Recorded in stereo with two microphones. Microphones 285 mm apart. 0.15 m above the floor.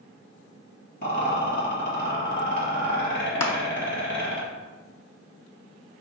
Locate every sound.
1.0 s a rattle: 35° left (ahead or behind), 1.9 m
3.4 s crushing: 60° left (ahead or behind), 0.6 m